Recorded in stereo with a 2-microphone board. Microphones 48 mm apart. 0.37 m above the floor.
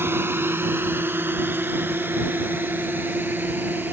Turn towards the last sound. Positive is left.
turn(degrees=-40)  # may be behind; listen again after turning